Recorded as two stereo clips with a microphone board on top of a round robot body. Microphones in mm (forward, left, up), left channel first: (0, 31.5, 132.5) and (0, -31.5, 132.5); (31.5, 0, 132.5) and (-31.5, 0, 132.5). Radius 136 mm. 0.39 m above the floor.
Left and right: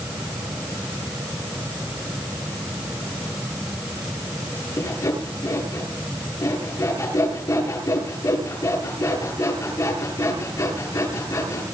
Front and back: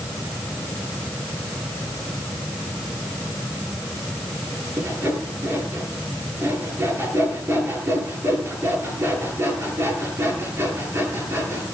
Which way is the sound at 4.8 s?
125° left.